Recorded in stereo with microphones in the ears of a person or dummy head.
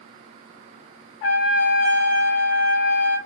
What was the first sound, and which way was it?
A trumpet, 40° left (ahead or behind).